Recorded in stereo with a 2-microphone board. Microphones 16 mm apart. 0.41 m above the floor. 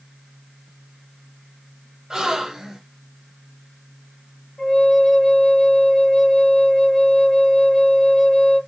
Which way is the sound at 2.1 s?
35° right (ahead or behind).